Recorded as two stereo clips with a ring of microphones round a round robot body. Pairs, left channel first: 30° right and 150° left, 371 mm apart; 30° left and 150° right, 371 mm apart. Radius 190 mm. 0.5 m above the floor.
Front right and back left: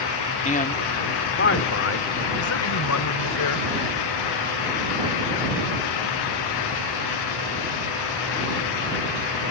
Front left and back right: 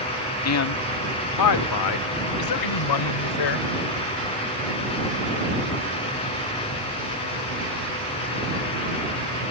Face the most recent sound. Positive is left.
turn(degrees=15)